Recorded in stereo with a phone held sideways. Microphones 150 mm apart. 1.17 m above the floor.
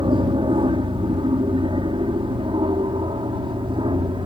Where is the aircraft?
35° right (ahead or behind).